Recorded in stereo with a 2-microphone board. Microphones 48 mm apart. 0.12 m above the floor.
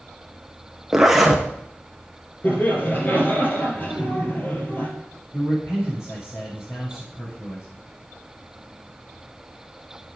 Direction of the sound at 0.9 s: 10° right (ahead or behind).